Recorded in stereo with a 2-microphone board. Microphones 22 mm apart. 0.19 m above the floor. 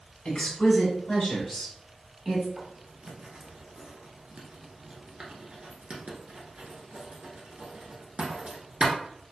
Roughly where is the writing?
Right.